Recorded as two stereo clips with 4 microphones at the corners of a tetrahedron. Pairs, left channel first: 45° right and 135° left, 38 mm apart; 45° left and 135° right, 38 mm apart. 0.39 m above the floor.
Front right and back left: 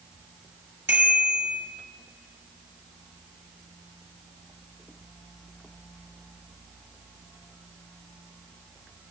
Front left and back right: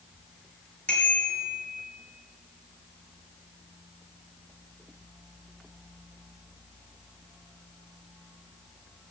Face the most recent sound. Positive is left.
turn(degrees=105)